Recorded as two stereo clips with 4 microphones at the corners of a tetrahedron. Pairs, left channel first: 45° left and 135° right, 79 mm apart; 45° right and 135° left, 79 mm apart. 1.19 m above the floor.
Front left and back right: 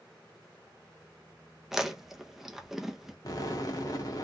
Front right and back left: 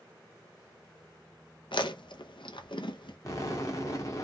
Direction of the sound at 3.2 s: 5° left.